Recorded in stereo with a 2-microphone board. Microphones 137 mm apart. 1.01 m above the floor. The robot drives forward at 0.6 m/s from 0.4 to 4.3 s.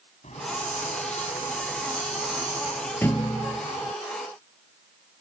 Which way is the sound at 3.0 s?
15° left (ahead or behind).